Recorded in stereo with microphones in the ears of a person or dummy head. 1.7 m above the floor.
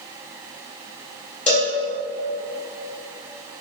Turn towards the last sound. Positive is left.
turn(degrees=10)  # may be behind; listen again after turning